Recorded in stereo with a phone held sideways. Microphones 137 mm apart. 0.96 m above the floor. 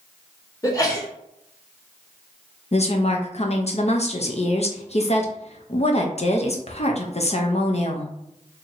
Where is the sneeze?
25° left (ahead or behind), 1.5 m.